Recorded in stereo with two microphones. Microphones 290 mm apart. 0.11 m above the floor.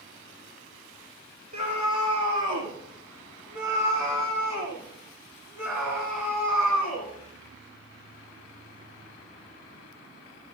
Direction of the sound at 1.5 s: 80° right.